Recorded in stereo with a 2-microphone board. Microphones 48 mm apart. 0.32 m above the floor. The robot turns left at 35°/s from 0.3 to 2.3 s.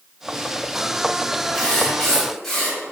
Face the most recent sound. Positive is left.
turn(degrees=10)  # may be behind; listen again after turning